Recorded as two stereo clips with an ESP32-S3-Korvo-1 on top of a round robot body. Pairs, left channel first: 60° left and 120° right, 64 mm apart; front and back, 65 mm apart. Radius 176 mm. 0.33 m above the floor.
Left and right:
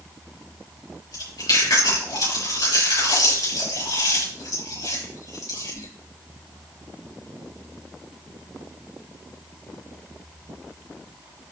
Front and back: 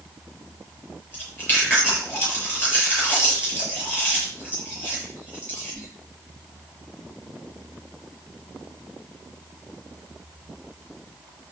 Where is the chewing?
60° left, 7.5 m.